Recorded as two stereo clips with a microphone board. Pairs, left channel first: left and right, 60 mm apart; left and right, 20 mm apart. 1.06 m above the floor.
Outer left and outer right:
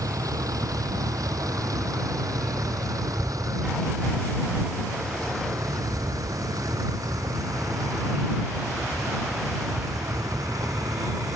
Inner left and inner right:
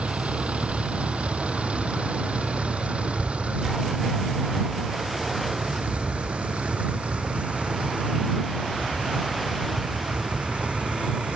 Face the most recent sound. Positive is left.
turn(degrees=-85)